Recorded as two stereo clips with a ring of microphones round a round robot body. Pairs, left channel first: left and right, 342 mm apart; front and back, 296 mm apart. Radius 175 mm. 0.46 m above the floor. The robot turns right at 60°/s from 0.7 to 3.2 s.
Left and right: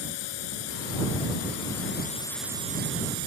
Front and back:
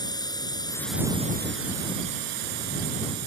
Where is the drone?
80° left; by 3.3 s 130° right.